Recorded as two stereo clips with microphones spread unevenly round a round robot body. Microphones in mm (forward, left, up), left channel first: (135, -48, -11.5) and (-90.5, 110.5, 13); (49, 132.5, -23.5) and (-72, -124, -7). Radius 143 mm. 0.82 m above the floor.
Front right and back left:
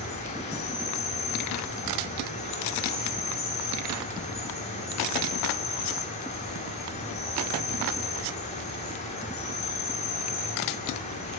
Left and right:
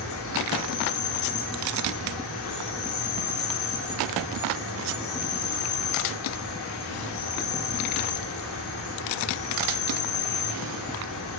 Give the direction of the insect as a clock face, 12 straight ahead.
11 o'clock.